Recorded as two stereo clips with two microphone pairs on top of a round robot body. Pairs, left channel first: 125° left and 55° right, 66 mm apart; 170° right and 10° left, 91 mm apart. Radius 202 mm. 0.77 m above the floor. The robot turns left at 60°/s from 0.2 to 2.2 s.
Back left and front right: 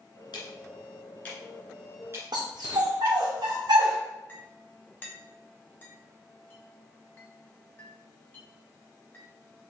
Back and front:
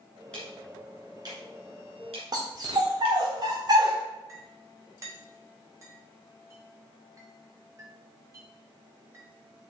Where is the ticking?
110° left, 2 m; by 3.2 s 5° right, 2 m.